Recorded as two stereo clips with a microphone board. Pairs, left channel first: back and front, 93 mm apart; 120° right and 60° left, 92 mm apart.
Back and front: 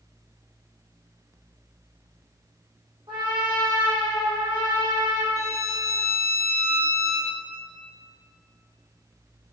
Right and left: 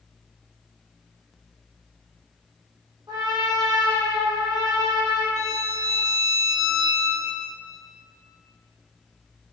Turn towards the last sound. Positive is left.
turn(degrees=35)